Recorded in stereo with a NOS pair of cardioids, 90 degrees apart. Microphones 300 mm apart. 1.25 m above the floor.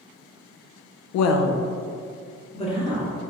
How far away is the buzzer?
No buzzer in this recording.